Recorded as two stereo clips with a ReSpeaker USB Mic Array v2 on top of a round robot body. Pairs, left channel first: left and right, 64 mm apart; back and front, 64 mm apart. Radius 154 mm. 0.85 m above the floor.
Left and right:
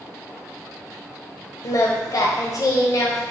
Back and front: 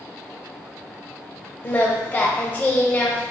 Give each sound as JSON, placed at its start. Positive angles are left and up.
{"t": 1.6, "sound": "singing", "azimuth_deg": 115, "distance_m": 0.7}